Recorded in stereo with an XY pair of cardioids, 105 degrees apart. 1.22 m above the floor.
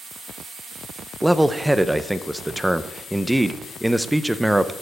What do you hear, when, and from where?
1.2 s a man speaking: 5° right, 0.8 m